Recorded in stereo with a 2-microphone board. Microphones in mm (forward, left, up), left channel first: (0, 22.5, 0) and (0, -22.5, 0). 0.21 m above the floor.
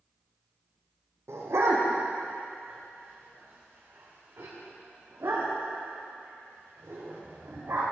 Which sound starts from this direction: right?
A dog barking, at 1.3 s.